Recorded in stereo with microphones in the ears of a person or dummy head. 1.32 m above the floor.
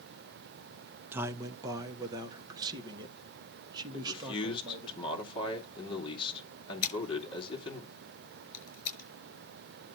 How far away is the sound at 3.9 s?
About 2.5 m.